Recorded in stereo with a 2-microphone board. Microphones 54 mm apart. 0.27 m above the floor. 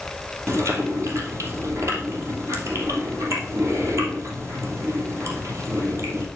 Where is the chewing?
60° right (ahead or behind), 3 m.